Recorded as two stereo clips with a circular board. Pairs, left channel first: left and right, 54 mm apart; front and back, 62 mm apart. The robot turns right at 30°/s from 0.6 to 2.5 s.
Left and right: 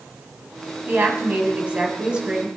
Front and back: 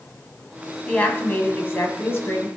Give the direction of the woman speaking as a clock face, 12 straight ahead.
2 o'clock.